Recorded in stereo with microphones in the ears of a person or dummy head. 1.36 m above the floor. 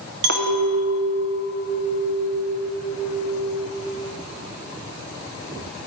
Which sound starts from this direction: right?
A clink, at 0.2 s.